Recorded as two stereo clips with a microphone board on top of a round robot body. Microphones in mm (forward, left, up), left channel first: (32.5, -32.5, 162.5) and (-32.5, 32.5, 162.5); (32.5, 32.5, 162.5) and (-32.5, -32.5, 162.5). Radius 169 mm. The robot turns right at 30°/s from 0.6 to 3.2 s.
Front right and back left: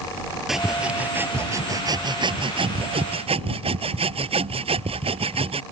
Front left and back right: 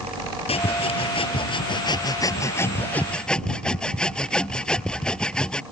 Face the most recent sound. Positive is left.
turn(degrees=125)